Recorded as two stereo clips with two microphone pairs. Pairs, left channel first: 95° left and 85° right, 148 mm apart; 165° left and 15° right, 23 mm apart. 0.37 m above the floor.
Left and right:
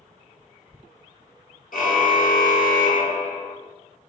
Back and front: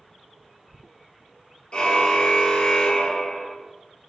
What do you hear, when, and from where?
1.7 s a car horn: 120° left, 3.5 m; by 3.5 s 105° left, 2.5 m